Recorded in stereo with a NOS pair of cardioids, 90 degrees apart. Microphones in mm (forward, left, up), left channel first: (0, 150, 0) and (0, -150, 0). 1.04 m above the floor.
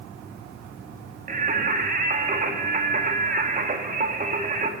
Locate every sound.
1.3 s singing: 30° right, 1.9 m